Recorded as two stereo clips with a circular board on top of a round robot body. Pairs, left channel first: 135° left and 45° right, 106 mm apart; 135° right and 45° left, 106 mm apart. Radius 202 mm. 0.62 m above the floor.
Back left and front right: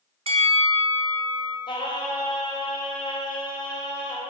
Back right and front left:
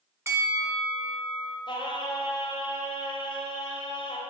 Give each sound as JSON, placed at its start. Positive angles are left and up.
{"t": 0.3, "sound": "a bell", "azimuth_deg": -20, "distance_m": 1.7}
{"t": 1.7, "sound": "singing", "azimuth_deg": 180, "distance_m": 1.9}